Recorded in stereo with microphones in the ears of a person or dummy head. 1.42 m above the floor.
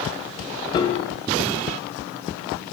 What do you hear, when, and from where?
0.7 s a piano: 25° left (ahead or behind), 0.9 m